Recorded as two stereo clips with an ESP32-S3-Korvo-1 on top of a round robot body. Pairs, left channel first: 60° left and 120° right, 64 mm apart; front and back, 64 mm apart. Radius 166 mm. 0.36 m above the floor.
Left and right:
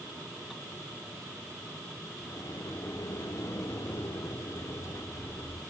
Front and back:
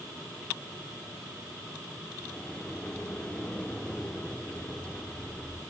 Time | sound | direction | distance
2.3 | a sliding door | 75° left | 1.3 m